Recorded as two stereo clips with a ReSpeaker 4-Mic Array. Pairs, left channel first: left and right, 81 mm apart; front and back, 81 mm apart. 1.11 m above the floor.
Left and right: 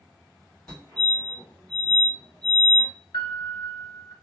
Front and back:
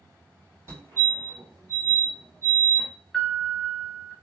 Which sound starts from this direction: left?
A piano, at 3.1 s.